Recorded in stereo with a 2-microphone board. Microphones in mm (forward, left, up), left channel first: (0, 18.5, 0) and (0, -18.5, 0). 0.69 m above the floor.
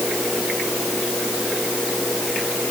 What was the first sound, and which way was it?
Only background noise.